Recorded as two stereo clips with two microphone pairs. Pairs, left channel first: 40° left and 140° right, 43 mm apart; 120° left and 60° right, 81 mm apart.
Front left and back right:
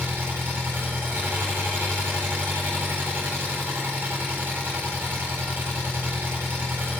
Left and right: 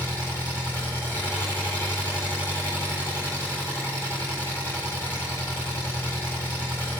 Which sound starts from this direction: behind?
An engine running, at 0.0 s.